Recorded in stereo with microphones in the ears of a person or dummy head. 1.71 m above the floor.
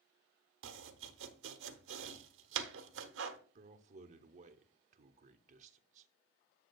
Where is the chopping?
75° right (ahead or behind), 0.9 m.